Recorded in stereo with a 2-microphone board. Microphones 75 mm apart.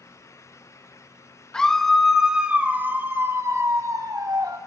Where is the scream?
10° left (ahead or behind), 1.6 m; by 4.6 s 60° right (ahead or behind), 2 m.